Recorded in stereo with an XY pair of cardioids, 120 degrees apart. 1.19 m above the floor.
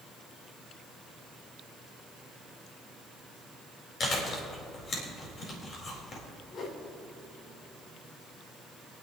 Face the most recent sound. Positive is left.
turn(degrees=50)